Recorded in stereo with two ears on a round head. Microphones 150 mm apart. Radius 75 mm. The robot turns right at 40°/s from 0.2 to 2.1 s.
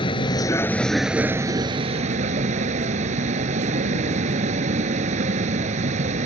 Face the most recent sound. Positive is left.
turn(degrees=-135)